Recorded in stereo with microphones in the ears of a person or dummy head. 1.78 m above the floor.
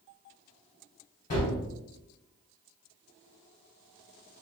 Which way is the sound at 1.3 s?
25° left (ahead or behind).